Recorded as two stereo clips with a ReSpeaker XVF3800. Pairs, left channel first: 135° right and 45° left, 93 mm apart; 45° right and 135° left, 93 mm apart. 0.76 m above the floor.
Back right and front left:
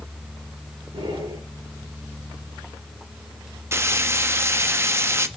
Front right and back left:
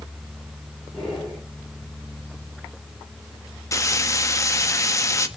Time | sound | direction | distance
0.9 | breathing | 50° left | 6.5 m
3.7 | frying | 5° right | 1.0 m